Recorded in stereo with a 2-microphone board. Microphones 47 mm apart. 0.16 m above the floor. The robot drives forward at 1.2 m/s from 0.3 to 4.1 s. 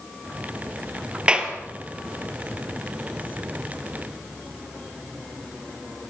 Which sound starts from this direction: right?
A clap, at 1.3 s.